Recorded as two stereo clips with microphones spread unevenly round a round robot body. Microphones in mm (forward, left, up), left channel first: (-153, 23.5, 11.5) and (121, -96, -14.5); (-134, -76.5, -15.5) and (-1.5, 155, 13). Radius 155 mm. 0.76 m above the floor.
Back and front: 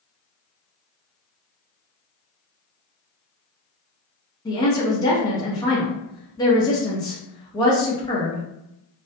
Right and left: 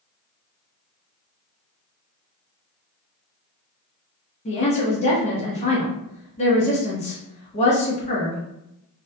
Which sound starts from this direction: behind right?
A woman speaking, at 4.5 s.